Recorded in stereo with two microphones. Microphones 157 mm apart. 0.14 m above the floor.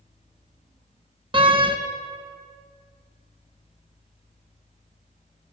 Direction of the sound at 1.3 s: 35° right (ahead or behind).